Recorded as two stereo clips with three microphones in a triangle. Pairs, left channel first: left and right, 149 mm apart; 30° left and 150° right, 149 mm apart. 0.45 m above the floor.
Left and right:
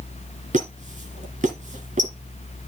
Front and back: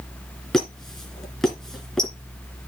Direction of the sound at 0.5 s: 55° right.